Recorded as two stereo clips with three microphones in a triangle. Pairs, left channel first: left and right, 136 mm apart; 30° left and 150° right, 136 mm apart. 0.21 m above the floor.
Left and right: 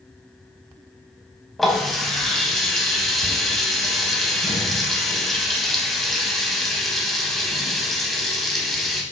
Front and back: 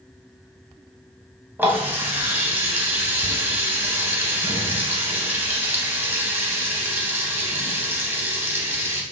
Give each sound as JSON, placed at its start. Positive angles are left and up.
{"t": 1.6, "sound": "a running tap", "azimuth_deg": 175, "distance_m": 0.6}